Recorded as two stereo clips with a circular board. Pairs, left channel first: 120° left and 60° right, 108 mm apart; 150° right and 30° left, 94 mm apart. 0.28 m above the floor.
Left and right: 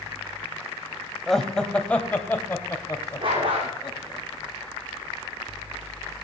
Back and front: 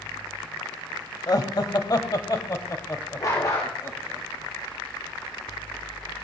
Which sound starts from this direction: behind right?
Laughter, at 1.3 s.